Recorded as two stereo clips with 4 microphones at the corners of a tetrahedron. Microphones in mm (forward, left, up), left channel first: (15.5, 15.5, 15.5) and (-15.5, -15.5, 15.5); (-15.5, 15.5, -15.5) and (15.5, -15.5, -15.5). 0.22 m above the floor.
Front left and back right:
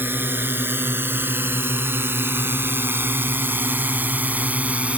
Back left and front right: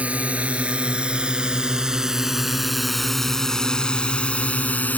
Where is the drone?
105° right; by 5.0 s 175° left.